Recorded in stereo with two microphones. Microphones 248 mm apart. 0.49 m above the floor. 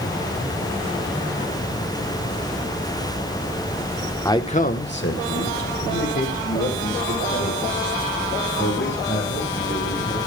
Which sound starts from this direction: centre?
A man speaking, at 4.2 s.